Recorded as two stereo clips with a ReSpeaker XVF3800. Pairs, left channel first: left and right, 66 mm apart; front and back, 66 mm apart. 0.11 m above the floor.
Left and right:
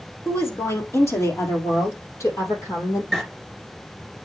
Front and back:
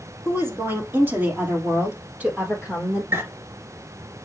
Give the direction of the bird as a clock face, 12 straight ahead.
6 o'clock.